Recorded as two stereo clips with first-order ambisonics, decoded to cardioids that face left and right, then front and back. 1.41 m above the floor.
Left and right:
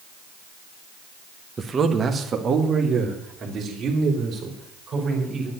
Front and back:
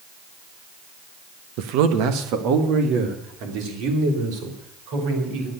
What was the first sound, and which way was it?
A man speaking, 165° right.